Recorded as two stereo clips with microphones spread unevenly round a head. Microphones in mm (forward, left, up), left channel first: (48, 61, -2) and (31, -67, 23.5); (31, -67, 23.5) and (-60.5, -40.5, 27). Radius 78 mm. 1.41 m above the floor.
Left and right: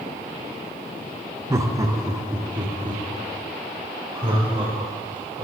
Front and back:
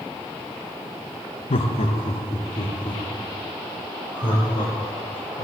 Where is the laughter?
30° right, 1.2 m; by 5.5 s 50° right, 7 m.